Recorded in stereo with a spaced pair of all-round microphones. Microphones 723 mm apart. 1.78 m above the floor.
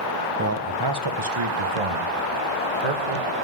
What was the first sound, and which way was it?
A man speaking, 20° right (ahead or behind).